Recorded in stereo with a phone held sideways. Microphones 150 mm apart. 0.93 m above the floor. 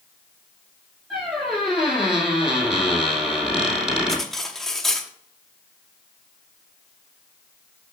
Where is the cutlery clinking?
5° left (ahead or behind), 0.8 m.